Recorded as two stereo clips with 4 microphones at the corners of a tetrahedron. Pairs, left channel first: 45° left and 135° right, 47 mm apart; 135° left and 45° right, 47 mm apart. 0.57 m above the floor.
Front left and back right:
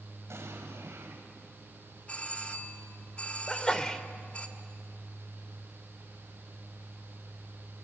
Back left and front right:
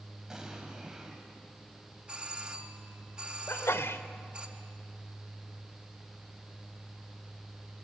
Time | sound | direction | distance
0.3 | an explosion | 125° right | 3 m
2.1 | a doorbell | 10° left | 1.5 m
3.5 | a sneeze | 120° left | 1.5 m